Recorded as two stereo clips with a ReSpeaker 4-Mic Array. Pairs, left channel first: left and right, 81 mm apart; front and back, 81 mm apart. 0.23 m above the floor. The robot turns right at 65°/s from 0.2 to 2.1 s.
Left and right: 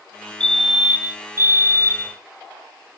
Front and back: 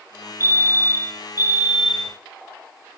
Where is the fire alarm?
165° left, 2.5 m; by 2.2 s 85° right, 2.5 m.